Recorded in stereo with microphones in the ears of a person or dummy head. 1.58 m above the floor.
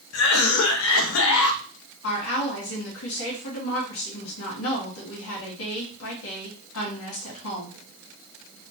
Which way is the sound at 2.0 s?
75° left (ahead or behind).